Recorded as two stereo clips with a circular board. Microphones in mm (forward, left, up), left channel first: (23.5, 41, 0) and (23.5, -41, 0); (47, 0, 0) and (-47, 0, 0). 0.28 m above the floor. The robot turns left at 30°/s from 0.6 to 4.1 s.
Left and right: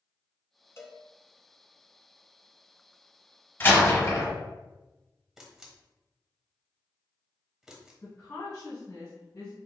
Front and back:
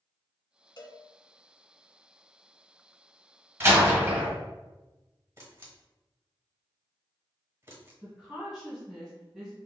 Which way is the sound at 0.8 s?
35° left.